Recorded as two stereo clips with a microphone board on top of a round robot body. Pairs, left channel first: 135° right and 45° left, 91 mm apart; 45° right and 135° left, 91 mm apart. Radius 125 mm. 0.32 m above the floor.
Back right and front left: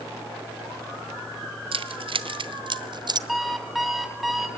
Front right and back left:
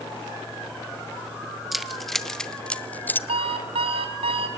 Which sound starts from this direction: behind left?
An alarm clock, at 3.3 s.